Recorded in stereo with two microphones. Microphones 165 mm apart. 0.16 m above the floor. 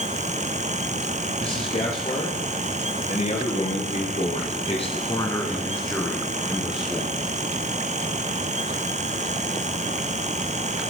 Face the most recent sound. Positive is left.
turn(degrees=-10)  # may be behind; listen again after turning